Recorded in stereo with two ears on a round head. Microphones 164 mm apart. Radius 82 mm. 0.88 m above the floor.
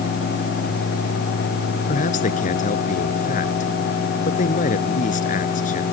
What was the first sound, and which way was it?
A man speaking, 45° left (ahead or behind).